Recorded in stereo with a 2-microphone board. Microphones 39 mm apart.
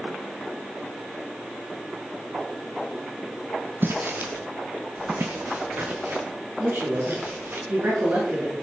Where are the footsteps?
65° right (ahead or behind), 1.3 m; by 7.6 s 70° right (ahead or behind), 3.5 m.